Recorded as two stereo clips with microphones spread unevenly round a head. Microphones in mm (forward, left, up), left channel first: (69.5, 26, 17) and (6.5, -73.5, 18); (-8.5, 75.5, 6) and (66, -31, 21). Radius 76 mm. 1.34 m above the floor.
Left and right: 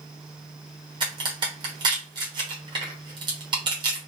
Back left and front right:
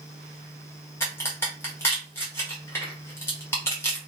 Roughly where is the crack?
Behind.